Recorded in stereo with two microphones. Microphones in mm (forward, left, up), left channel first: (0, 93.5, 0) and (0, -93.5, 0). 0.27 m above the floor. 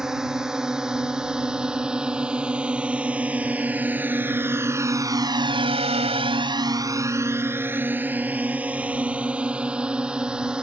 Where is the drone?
5° right (ahead or behind).